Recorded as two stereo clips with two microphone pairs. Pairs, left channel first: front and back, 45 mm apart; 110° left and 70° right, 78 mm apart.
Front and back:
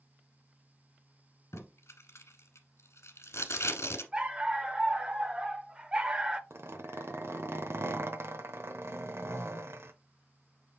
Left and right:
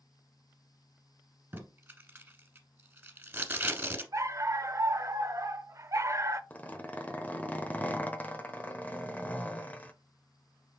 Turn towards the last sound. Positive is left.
turn(degrees=180)